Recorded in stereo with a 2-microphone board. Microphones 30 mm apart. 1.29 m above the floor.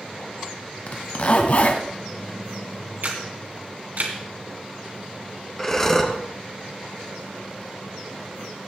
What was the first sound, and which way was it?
A zipper, 50° left (ahead or behind).